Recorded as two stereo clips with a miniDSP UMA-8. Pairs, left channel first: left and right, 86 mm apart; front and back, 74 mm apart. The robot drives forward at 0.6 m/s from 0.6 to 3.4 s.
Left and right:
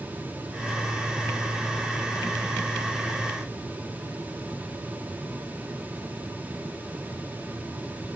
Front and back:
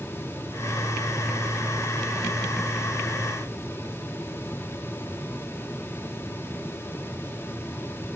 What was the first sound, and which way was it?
Only background noise.